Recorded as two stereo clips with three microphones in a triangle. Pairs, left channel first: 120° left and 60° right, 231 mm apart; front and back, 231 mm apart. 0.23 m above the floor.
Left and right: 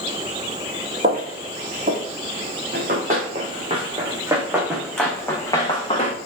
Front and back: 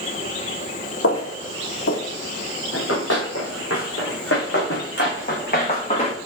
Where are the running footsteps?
10° right, 1.7 m; by 6.2 s 60° left, 1.4 m.